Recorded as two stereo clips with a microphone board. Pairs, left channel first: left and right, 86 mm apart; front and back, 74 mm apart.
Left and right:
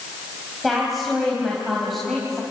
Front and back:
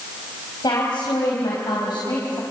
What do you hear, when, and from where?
0.6 s a woman speaking: straight ahead, 4 m